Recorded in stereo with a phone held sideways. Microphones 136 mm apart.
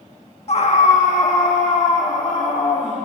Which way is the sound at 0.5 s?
50° left (ahead or behind).